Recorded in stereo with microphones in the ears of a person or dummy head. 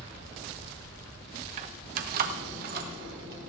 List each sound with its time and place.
1.6 s keys jangling: 40° right (ahead or behind), 0.8 m; by 3.5 s 55° right (ahead or behind), 3.5 m